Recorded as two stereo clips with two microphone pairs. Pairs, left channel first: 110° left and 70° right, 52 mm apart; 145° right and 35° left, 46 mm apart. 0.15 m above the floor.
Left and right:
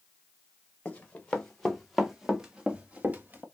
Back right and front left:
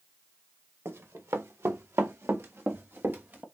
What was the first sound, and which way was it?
Running footsteps, 45° left.